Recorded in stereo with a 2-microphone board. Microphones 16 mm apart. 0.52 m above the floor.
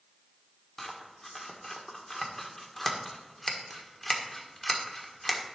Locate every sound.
0.8 s scissors: 20° left (ahead or behind), 1.6 m